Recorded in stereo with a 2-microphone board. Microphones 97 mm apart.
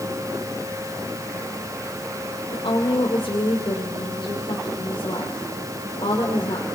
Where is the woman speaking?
70° left (ahead or behind), 3 m.